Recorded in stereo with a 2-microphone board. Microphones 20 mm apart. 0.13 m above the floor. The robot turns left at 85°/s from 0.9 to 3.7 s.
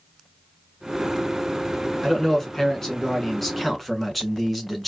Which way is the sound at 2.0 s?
10° left (ahead or behind).